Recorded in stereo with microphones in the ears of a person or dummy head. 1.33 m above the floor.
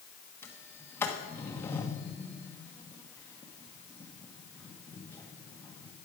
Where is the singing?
I don't hear singing.